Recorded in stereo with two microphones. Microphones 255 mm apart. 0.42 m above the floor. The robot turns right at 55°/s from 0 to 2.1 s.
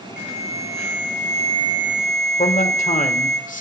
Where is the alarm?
105° right, 2.5 m; by 3.4 s straight ahead, 2.5 m.